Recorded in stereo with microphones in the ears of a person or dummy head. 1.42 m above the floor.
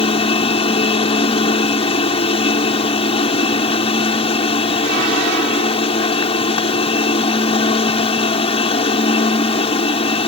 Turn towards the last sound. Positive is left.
turn(degrees=25)  # may be behind; listen again after turning